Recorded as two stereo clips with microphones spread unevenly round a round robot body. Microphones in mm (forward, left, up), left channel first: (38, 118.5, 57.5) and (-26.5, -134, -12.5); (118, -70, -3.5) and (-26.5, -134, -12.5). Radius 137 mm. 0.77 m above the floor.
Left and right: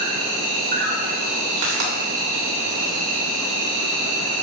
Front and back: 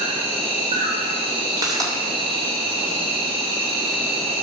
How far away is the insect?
About 2.5 m.